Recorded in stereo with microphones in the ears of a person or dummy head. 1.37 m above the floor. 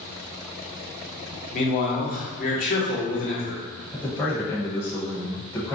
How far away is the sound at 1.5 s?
About 0.8 m.